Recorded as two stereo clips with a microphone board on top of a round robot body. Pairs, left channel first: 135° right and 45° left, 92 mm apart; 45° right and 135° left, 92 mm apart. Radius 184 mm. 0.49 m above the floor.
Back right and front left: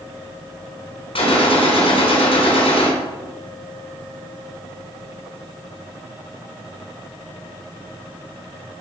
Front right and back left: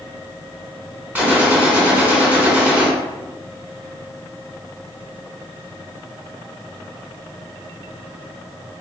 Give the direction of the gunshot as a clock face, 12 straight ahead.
5 o'clock.